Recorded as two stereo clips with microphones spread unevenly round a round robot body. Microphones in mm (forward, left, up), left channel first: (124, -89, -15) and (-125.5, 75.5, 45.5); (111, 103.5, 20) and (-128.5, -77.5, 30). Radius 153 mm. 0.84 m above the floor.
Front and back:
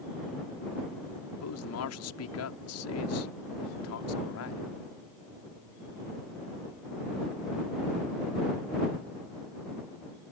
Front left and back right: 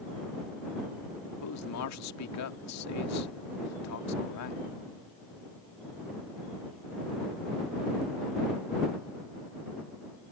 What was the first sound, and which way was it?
A man speaking, straight ahead.